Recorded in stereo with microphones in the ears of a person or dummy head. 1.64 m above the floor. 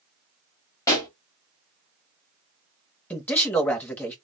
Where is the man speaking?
10° left (ahead or behind), 0.7 m.